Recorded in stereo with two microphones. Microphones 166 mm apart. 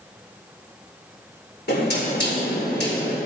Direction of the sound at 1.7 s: 75° left (ahead or behind).